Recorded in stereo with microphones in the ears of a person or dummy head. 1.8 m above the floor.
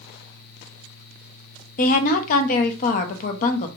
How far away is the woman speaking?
About 0.5 m.